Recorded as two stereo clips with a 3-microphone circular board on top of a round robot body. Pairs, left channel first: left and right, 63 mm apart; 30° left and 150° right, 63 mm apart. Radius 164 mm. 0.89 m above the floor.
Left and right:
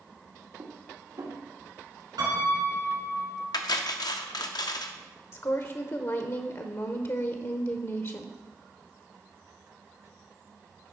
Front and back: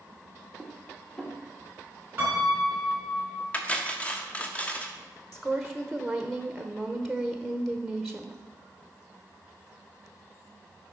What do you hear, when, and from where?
0.6 s dishes clattering: 55° right, 1.6 m
2.2 s a piano: 85° right, 3 m
3.5 s cutlery clinking: 100° left, 0.7 m
5.3 s a woman speaking: 120° left, 1.0 m